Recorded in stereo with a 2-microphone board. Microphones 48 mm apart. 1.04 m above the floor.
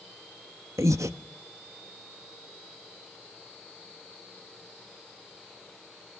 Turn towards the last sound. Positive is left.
turn(degrees=-80)